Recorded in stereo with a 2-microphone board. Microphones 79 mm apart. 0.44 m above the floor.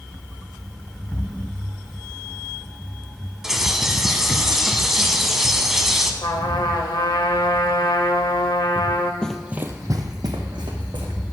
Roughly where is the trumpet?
Left.